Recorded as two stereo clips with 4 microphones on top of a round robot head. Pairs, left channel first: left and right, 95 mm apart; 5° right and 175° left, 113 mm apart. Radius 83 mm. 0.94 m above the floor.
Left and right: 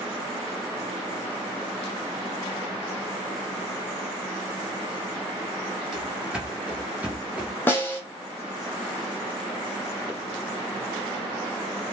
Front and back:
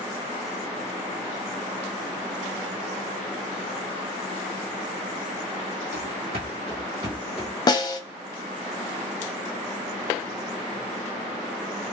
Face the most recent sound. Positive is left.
turn(degrees=30)